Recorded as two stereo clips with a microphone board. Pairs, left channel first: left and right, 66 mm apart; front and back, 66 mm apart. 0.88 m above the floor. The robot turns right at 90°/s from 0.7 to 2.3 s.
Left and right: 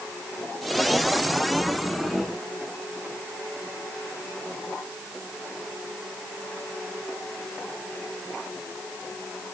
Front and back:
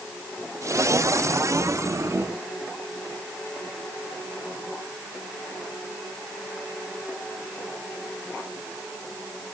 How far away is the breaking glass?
No breaking glass in this recording.